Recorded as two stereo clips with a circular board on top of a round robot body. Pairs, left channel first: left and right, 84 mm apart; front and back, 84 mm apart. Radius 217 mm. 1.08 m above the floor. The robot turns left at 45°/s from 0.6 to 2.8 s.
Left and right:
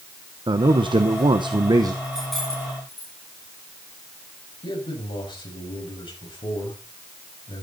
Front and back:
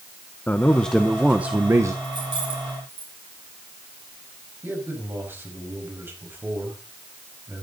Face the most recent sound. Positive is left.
turn(degrees=115)